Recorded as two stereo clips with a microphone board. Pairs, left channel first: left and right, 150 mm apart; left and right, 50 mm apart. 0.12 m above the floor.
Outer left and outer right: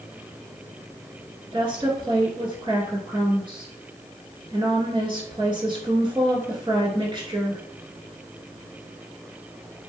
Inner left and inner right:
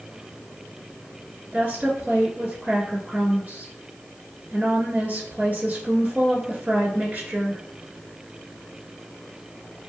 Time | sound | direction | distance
1.5 | a woman speaking | 30° right (ahead or behind) | 1.5 m